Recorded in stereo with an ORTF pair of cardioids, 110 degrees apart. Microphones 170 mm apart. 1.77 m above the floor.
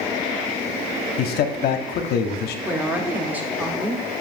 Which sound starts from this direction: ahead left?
A man speaking, at 1.2 s.